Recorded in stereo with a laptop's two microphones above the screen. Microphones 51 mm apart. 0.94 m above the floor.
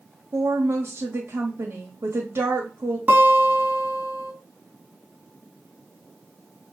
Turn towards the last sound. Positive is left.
turn(degrees=-35)  # may be behind; listen again after turning